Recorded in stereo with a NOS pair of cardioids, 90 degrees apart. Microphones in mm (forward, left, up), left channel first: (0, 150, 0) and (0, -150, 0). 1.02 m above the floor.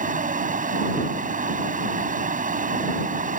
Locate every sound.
0.0 s a fan: 25° right